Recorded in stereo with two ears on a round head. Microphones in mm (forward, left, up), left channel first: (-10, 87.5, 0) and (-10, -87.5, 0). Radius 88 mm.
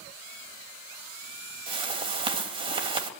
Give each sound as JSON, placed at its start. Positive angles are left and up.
{"t": 1.7, "sound": "a whoosh", "side_deg": -30, "distance_m": 2.5}